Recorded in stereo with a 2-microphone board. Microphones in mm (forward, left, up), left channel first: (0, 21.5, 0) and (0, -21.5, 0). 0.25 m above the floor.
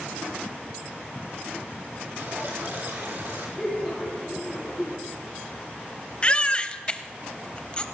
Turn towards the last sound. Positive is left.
turn(degrees=25)  # may be behind; listen again after turning